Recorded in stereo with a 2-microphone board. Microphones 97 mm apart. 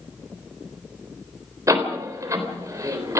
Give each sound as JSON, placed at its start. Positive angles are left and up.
{"t": 1.7, "sound": "a door slam", "side_deg": -30, "distance_m": 3.5}